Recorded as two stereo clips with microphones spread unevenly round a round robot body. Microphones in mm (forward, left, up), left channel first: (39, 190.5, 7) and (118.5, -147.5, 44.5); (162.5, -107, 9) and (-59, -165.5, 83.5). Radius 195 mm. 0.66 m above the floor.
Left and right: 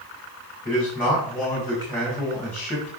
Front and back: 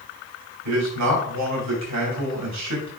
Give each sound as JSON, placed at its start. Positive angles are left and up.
{"t": 0.7, "sound": "a man speaking", "azimuth_deg": -175, "distance_m": 3.0}